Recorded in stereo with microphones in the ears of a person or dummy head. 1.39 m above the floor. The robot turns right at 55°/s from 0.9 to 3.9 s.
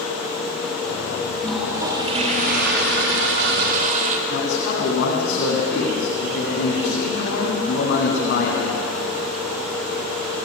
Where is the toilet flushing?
175° left, 2.5 m; by 4.2 s 50° right, 2.5 m.